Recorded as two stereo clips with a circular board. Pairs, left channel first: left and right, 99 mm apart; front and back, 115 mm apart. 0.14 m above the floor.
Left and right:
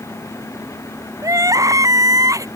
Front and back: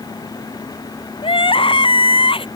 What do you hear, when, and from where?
1.2 s crying: 35° right